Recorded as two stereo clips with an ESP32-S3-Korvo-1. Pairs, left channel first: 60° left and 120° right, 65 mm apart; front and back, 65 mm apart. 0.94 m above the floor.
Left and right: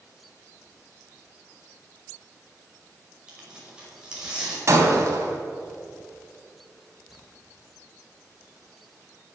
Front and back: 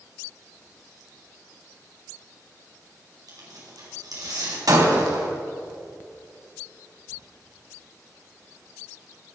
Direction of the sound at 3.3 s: 165° left.